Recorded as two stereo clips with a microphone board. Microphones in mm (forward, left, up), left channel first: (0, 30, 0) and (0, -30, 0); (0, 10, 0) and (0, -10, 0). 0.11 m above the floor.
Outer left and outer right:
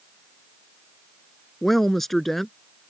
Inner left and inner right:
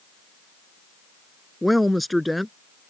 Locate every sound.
1.6 s a woman speaking: 5° left (ahead or behind)